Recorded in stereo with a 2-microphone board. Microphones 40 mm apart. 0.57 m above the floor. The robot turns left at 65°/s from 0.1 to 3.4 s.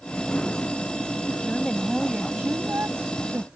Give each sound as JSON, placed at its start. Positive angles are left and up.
{"t": 1.4, "sound": "a woman speaking", "azimuth_deg": 25}